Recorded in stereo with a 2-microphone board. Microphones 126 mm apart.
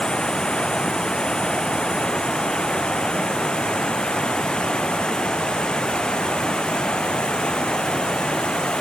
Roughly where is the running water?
Centre.